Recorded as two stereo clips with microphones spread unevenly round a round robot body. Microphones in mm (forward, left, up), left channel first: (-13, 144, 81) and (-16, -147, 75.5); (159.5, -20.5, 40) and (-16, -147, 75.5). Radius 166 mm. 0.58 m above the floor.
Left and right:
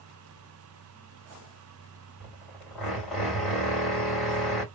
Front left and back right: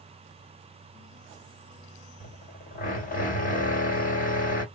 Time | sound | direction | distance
2.2 | a drill | straight ahead | 2 m